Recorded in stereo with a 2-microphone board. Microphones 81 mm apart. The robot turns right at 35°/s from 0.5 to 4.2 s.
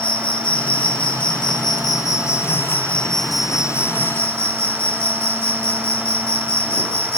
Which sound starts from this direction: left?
An insect, at 0.0 s.